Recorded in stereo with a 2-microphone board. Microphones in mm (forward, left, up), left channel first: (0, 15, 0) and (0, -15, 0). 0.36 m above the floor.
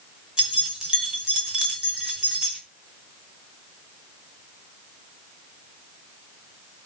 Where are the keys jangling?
20° right (ahead or behind), 1.7 m.